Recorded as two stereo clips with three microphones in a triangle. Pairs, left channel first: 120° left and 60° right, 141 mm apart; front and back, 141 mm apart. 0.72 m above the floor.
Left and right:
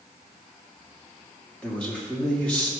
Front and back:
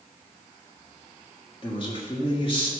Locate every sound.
1.6 s a man speaking: 40° left, 1.6 m